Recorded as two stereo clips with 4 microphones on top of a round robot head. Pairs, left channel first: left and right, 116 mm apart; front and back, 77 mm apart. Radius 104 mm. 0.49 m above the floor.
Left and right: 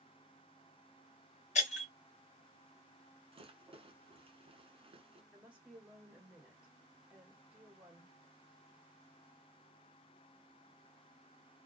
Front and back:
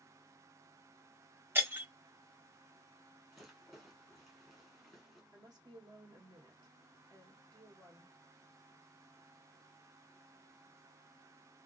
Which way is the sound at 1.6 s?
115° left.